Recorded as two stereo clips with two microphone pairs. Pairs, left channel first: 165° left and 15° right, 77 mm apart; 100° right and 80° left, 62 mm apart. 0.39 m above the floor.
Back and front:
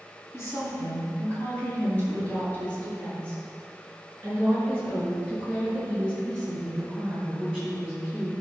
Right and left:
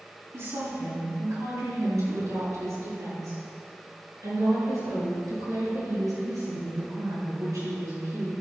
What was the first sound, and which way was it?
A woman speaking, 110° left.